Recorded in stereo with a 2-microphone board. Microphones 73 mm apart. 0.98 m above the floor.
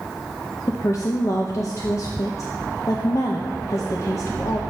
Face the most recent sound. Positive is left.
turn(degrees=45)  # may be behind; listen again after turning